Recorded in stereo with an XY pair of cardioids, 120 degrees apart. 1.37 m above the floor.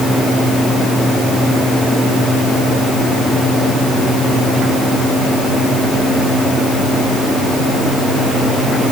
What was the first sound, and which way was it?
Only background noise.